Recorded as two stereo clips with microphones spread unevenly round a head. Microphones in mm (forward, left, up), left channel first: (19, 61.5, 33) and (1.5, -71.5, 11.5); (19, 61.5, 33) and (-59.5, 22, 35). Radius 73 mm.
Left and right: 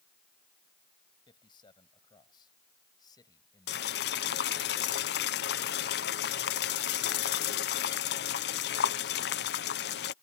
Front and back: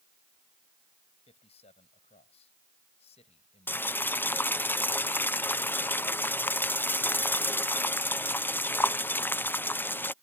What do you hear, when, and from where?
1.3 s a man speaking: 25° left; by 4.6 s 15° left
3.7 s boiling: 95° left